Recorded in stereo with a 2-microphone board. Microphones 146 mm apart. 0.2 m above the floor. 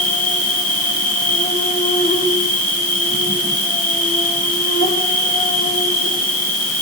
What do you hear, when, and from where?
0.0 s an insect: 70° left (ahead or behind), 5.5 m